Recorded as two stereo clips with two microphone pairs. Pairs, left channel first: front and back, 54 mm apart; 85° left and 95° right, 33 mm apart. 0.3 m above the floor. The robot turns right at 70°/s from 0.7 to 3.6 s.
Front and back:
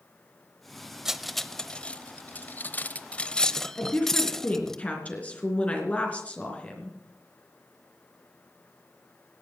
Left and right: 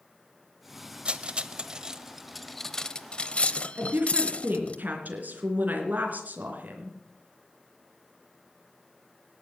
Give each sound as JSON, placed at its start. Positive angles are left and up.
{"t": 1.1, "sound": "cutlery clinking", "azimuth_deg": -105, "distance_m": 0.7}
{"t": 3.8, "sound": "a woman speaking", "azimuth_deg": -65, "distance_m": 3.0}